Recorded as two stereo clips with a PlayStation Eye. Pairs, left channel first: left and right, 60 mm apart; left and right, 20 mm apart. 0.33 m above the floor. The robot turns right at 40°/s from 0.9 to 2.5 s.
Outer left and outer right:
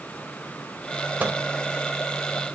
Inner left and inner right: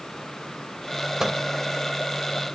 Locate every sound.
1.2 s a microwave: 30° right (ahead or behind), 0.8 m; by 1.4 s 35° right (ahead or behind), 0.8 m